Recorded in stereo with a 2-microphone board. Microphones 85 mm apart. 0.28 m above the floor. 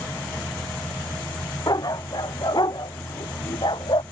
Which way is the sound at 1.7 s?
45° left (ahead or behind).